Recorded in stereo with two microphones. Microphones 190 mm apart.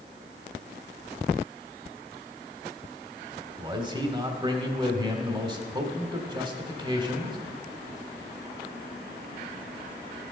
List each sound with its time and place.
3.6 s a man speaking: 25° right (ahead or behind), 1.3 m